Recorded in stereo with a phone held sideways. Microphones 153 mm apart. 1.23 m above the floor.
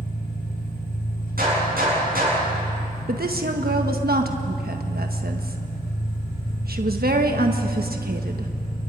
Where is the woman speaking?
85° right, 1.3 m.